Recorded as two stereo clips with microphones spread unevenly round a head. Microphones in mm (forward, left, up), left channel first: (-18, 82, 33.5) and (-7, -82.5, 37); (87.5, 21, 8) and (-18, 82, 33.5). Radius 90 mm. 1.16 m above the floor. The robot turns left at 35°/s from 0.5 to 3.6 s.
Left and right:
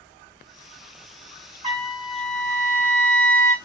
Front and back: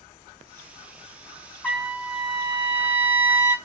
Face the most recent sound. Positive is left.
turn(degrees=165)